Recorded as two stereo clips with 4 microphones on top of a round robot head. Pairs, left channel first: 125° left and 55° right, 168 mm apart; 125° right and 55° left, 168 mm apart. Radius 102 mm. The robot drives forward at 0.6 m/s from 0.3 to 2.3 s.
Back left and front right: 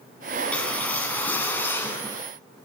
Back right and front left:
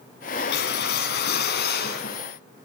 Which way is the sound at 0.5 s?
155° right.